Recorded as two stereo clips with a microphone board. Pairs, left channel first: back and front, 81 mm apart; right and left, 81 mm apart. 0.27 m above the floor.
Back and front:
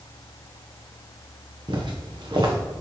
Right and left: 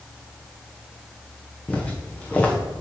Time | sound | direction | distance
1.7 | footsteps | 15° right | 1.4 m